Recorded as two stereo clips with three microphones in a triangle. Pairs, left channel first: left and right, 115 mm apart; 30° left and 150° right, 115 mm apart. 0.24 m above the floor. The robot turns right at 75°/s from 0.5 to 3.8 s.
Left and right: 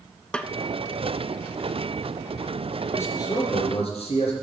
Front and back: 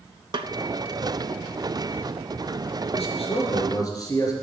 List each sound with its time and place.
0.3 s a snare drum: 170° left, 0.5 m
2.9 s a man speaking: 20° left, 3.5 m; by 4.3 s 85° left, 3.5 m